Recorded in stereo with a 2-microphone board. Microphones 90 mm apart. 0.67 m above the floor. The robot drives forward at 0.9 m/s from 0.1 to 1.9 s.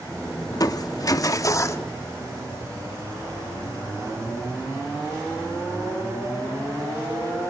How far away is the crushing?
About 1.2 m.